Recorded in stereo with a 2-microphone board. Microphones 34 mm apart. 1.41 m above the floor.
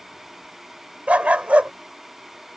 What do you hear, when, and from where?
1.1 s a dog barking: 45° right (ahead or behind)